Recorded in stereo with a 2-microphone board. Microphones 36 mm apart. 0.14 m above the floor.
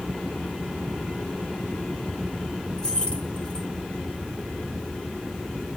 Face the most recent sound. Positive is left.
turn(degrees=25)  # may be behind; listen again after turning